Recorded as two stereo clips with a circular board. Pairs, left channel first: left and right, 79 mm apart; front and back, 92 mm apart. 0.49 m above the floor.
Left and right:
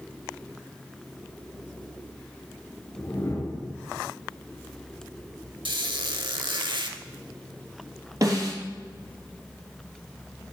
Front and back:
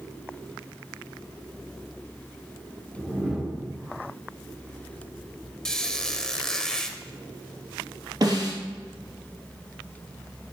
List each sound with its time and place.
3.0 s a whoosh: 100° left, 1.5 m
5.7 s a squeak: 85° right, 0.8 m
8.2 s a snare drum: 135° right, 3 m